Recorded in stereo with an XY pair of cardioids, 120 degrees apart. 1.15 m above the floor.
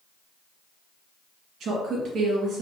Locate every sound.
1.6 s a woman speaking: 60° right, 1.8 m